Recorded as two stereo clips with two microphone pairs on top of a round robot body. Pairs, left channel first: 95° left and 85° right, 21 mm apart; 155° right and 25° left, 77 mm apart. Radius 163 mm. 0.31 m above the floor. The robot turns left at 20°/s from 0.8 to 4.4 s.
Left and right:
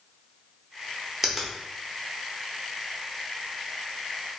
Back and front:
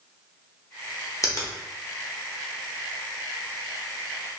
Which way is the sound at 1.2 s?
170° right.